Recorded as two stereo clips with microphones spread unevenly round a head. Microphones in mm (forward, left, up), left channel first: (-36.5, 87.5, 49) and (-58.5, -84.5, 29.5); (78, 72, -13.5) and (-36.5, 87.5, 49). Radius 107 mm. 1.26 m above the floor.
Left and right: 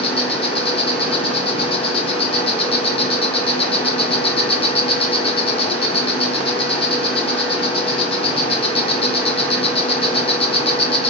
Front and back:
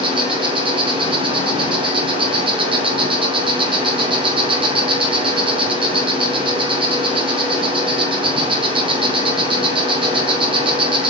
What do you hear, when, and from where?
0.0 s an insect: 140° left, 2 m